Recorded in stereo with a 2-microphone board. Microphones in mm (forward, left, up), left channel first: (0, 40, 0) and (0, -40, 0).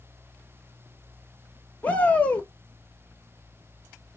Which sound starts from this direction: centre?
A shout, at 1.8 s.